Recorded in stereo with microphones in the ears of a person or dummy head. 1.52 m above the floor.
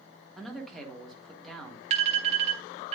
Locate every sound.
0.4 s a man speaking: centre (ahead or behind), 1.1 m
1.9 s an alarm: 35° right (ahead or behind), 0.9 m